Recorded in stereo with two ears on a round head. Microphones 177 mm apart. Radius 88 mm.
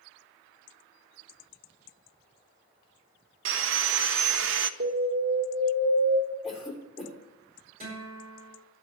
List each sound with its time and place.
3.5 s sawing: 65° right (ahead or behind), 0.5 m
4.8 s an alarm: 55° right (ahead or behind), 2 m
6.4 s a cough: centre (ahead or behind), 3 m
7.8 s a guitar: 30° right (ahead or behind), 7 m